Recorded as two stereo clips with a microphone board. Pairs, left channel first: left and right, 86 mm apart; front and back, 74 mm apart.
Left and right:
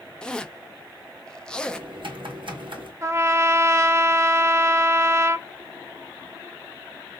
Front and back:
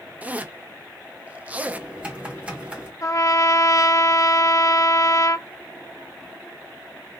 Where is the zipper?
155° left, 0.5 m.